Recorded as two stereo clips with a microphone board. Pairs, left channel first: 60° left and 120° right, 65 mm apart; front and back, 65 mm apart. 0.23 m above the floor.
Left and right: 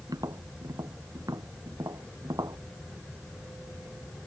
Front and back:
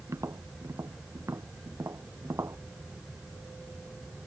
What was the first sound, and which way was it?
Tapping, 140° right.